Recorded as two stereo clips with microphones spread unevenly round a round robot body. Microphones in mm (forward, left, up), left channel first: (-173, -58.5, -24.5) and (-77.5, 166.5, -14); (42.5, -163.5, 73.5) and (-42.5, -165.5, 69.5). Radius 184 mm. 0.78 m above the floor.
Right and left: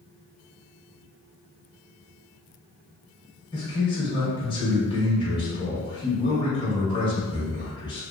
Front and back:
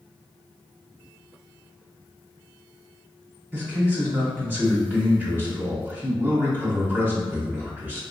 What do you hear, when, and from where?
3.5 s a man speaking: 150° right, 0.9 m